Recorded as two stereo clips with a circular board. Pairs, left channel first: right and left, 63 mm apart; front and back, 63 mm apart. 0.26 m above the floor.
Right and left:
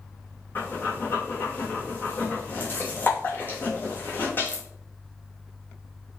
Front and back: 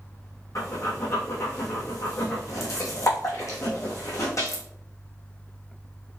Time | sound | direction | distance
0.6 | breathing | 30° right | 2.5 m